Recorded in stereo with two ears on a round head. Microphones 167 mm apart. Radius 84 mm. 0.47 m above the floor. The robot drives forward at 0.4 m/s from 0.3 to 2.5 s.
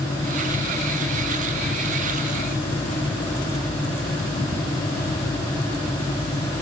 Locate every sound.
Only background noise.